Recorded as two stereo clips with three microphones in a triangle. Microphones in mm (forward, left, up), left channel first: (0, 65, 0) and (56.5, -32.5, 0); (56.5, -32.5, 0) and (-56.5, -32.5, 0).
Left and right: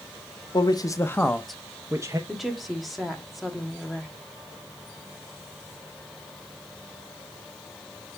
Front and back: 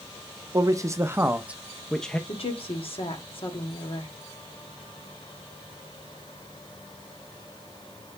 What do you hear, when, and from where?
0.5 s a man speaking: 140° left, 0.8 m; by 2.2 s 70° right, 0.7 m
2.3 s a woman speaking: 30° left, 1.7 m